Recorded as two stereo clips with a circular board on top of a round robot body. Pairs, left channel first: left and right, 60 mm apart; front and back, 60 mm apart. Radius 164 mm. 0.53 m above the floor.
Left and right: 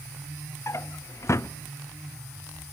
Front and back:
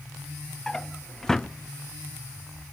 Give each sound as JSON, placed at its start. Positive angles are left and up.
{"t": 0.7, "sound": "a drawer", "azimuth_deg": 80, "distance_m": 0.5}